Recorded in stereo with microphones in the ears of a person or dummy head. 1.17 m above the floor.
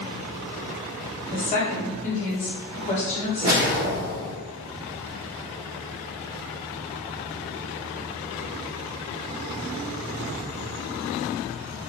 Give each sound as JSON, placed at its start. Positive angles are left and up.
{"t": 1.3, "sound": "a woman speaking", "side_deg": 35, "distance_m": 0.9}
{"t": 3.4, "sound": "a whoosh", "side_deg": -50, "distance_m": 1.1}